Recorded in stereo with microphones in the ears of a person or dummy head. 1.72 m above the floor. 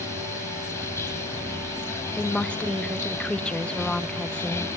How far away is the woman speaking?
About 0.8 m.